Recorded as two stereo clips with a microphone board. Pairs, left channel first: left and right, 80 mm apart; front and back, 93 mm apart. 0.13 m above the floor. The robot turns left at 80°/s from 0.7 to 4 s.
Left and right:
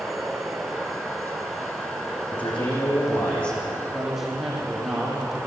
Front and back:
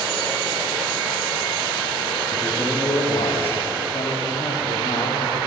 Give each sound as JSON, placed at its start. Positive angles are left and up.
{"t": 2.3, "sound": "a man speaking", "azimuth_deg": 105, "distance_m": 8.0}
{"t": 3.9, "sound": "a man speaking", "azimuth_deg": 5, "distance_m": 5.5}